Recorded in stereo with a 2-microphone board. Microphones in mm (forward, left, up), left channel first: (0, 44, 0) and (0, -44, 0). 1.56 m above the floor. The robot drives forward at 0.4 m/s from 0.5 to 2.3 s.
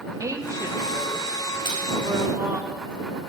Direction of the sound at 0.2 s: 40° right (ahead or behind).